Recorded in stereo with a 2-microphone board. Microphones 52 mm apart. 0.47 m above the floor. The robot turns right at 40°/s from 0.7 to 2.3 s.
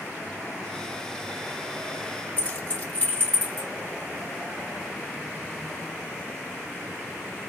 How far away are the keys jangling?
About 1.6 m.